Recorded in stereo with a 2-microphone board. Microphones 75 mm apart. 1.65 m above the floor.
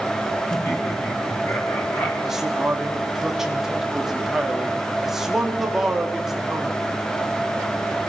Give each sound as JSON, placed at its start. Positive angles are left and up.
{"t": 0.5, "sound": "laughter", "side_deg": 35, "distance_m": 4.0}
{"t": 2.3, "sound": "a man speaking", "side_deg": -5, "distance_m": 3.5}